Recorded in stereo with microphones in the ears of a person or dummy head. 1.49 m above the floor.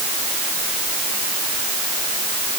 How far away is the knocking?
No knocking in this recording.